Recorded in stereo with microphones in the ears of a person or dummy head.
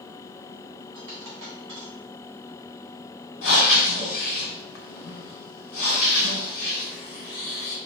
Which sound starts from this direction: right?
A dropped coin, at 0.9 s.